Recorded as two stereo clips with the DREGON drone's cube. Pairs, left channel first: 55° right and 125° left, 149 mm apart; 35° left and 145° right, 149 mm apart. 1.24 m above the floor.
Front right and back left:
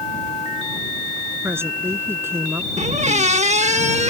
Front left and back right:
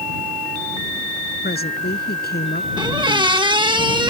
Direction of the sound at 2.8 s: 160° left.